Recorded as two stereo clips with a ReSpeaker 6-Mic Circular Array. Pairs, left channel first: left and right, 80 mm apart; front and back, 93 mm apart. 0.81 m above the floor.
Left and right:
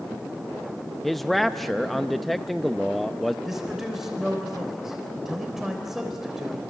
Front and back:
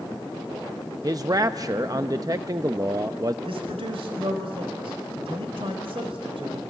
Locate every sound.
1.0 s a man speaking: straight behind, 0.5 m
3.5 s a man speaking: 175° right, 3.5 m